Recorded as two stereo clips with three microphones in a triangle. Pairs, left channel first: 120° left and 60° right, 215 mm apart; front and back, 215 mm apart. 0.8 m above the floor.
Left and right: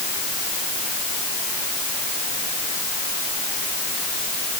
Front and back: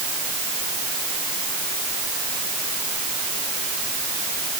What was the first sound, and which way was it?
Only background noise.